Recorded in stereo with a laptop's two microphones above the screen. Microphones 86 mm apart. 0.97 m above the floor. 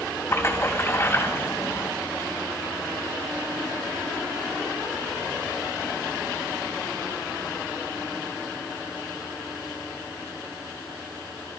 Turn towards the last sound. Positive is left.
turn(degrees=30)  # may be behind; listen again after turning